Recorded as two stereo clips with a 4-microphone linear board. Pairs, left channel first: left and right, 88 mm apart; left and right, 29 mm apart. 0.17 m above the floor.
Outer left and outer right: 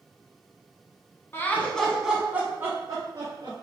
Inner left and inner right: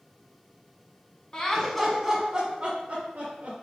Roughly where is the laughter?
Left.